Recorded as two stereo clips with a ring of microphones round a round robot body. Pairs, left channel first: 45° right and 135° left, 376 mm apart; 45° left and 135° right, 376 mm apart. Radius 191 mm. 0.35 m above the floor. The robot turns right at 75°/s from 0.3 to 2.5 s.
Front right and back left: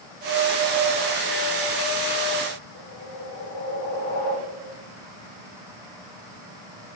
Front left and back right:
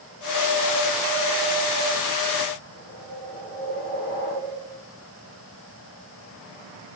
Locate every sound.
2.7 s a whoosh: 20° right, 2 m